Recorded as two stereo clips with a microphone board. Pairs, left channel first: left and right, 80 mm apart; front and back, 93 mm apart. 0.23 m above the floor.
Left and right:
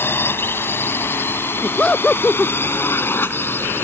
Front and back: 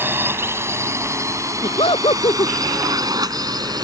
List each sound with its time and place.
0.0 s a drone: 130° left; by 3.8 s 150° left
1.6 s laughter: 15° left